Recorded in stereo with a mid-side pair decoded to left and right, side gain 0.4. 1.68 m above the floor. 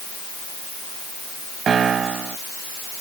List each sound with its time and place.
1.7 s a piano: 55° right